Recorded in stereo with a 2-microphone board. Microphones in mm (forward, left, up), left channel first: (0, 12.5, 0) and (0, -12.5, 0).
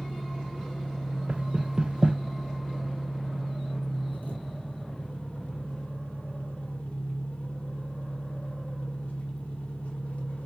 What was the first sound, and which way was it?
An engine running, 80° left.